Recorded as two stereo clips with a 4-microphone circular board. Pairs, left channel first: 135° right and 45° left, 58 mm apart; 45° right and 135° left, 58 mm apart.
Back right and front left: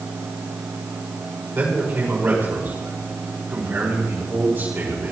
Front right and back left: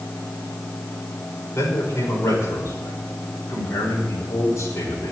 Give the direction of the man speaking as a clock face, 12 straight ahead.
12 o'clock.